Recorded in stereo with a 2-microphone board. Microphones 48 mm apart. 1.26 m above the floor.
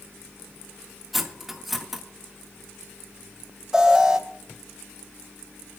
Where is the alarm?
10° right (ahead or behind), 3 m.